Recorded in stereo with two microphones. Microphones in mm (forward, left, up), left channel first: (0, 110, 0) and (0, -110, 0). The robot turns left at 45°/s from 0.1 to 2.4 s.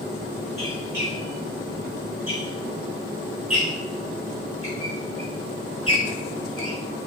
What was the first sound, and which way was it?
A squeak, 10° right (ahead or behind).